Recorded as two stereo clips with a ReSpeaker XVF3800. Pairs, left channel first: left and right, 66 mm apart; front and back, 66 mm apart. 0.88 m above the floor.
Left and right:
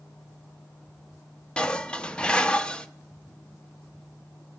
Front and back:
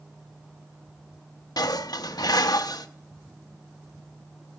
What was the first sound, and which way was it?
Dishes clattering, 15° left.